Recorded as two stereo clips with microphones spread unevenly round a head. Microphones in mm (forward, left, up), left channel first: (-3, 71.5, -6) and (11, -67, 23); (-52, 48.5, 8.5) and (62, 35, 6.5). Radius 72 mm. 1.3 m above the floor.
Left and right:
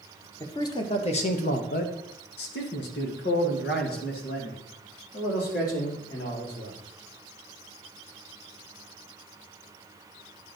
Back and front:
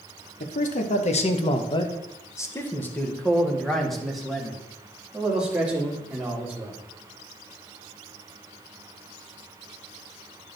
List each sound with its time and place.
0.4 s a man speaking: 170° left, 1.1 m; by 6.8 s 70° left, 3.5 m